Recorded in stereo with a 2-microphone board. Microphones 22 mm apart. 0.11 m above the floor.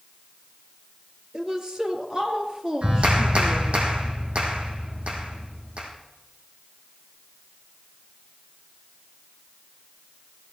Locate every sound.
1.3 s a woman speaking: 35° right (ahead or behind), 2.5 m
2.8 s a clap: 65° right (ahead or behind), 3.5 m